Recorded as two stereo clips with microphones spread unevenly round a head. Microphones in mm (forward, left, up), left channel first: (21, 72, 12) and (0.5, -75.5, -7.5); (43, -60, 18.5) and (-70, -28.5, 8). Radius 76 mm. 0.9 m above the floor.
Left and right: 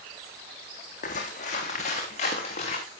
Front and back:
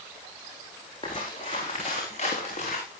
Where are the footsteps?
45° left, 3.5 m; by 2.8 s 35° left, 5.5 m.